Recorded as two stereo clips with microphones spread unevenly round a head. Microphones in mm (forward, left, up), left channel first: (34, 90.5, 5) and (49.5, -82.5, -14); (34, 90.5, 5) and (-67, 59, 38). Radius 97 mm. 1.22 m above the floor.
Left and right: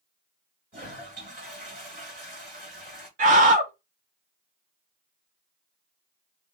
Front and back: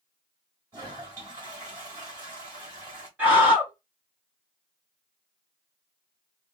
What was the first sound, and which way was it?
A toilet flushing, 130° right.